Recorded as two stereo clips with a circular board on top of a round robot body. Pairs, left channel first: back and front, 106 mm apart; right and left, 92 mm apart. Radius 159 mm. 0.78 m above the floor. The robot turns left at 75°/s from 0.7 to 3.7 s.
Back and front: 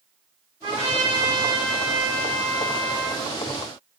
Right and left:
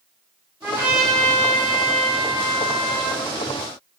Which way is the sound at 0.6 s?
25° left.